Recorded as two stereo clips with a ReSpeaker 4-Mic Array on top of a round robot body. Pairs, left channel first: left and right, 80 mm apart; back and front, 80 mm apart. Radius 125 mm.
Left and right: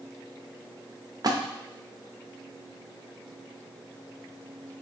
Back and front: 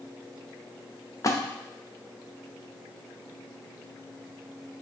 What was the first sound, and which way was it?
A splash, 130° right.